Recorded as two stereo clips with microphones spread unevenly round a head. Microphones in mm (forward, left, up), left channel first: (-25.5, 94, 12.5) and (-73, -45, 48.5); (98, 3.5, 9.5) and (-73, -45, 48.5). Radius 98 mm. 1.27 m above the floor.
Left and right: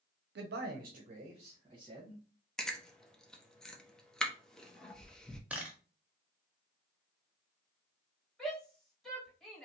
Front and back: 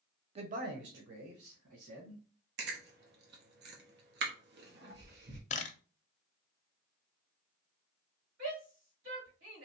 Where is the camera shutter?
20° right, 0.6 m.